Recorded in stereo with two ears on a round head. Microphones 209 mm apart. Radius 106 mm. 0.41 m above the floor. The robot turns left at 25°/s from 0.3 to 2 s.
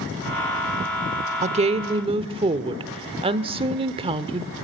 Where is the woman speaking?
30° right (ahead or behind), 0.9 m; by 4.5 s 25° right (ahead or behind), 0.9 m.